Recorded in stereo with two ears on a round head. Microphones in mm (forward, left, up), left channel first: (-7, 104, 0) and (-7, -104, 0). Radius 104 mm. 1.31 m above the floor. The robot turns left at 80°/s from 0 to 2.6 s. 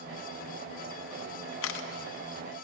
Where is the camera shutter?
65° left (ahead or behind), 0.8 m; by 1.9 s 45° left (ahead or behind), 0.8 m.